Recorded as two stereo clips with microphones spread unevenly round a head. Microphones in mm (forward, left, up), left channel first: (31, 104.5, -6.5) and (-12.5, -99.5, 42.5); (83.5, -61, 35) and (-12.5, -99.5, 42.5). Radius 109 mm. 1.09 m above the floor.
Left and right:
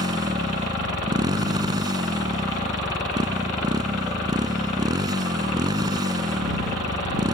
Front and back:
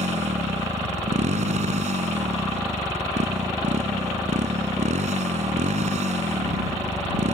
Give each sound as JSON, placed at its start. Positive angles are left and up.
{"t": 0.0, "sound": "a motorcycle", "azimuth_deg": -175}